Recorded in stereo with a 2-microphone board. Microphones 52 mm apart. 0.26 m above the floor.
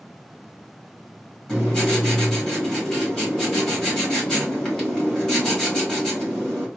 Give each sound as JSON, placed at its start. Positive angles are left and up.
{"t": 1.5, "sound": "writing", "side_deg": 10, "distance_m": 1.5}